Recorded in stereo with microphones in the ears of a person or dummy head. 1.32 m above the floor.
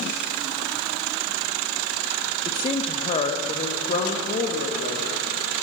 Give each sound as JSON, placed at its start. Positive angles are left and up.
{"t": 2.5, "sound": "a woman speaking", "side_deg": 25, "distance_m": 0.9}